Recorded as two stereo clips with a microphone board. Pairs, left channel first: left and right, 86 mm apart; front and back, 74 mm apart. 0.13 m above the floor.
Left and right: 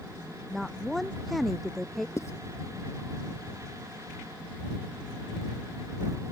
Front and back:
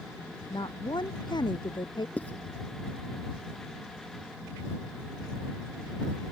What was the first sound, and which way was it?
A woman speaking, straight ahead.